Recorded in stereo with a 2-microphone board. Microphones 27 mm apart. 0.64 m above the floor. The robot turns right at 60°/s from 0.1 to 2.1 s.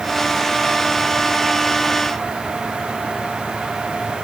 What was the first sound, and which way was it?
Only background noise.